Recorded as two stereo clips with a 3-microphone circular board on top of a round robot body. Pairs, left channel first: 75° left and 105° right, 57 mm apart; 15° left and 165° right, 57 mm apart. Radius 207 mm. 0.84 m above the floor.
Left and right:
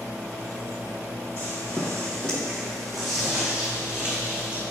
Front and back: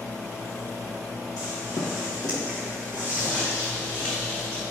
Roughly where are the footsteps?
Ahead.